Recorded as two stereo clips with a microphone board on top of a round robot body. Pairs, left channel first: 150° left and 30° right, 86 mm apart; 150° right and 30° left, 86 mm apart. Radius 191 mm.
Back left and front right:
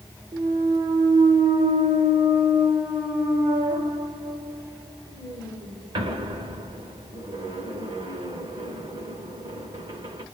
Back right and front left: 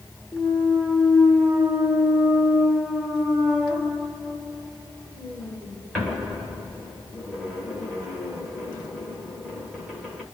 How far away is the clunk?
About 0.5 m.